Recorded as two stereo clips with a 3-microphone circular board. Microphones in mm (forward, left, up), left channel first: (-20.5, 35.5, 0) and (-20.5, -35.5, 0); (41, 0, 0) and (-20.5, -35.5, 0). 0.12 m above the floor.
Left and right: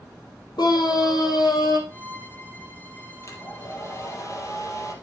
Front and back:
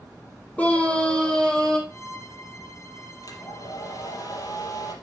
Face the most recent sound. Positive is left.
turn(degrees=50)